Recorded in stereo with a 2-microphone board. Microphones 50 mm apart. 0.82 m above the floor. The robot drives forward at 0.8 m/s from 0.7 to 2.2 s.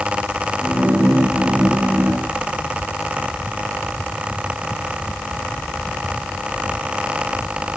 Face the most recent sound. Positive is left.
No sound to turn to.